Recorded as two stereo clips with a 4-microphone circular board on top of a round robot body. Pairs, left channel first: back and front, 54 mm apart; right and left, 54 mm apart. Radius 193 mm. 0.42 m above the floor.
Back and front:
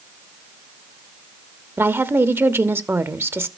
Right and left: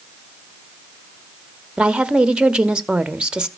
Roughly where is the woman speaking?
Ahead.